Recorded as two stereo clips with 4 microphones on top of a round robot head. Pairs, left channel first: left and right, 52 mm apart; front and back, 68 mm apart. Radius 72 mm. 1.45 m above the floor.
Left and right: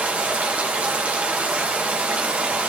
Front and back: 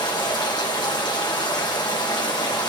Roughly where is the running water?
Ahead right.